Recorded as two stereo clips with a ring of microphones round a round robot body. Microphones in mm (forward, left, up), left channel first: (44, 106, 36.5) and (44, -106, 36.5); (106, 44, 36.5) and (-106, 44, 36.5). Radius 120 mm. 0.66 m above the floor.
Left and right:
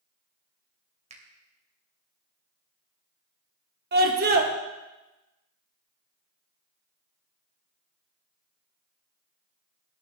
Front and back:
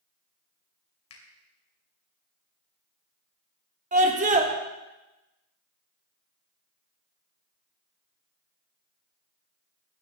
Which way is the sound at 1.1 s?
30° right.